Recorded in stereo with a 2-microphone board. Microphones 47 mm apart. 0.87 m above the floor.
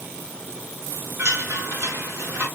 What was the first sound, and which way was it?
A chime, 65° right (ahead or behind).